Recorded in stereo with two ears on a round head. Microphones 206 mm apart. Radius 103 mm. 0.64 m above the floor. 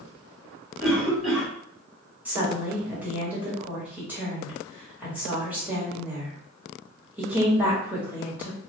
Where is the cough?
Centre (ahead or behind), 1.8 m.